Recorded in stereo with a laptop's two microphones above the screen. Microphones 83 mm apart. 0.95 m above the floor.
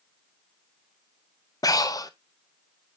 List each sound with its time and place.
1.6 s breathing: 45° left (ahead or behind), 0.6 m